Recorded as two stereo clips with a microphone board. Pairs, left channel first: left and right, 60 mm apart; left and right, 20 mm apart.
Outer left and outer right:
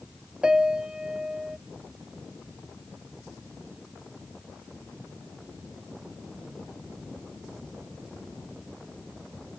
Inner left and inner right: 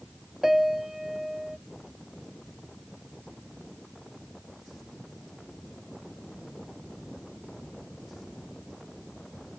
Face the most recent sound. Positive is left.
turn(degrees=-15)  # may be behind; listen again after turning